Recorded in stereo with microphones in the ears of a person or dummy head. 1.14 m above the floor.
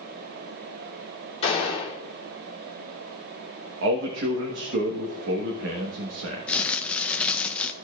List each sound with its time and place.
1.4 s a gunshot: 35° left (ahead or behind), 3 m
3.8 s a man speaking: 65° right (ahead or behind), 1.2 m
6.5 s crumpling: 10° left (ahead or behind), 0.6 m